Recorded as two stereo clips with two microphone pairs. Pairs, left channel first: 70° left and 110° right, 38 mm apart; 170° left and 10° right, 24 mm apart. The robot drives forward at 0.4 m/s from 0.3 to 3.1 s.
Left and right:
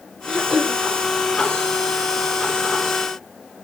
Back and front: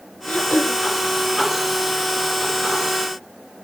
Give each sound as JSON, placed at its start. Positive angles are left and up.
{"t": 0.3, "sound": "throat clearing", "azimuth_deg": 155, "distance_m": 5.0}